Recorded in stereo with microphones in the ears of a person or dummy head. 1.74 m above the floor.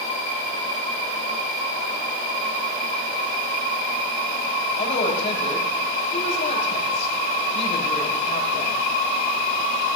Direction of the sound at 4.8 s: 45° left (ahead or behind).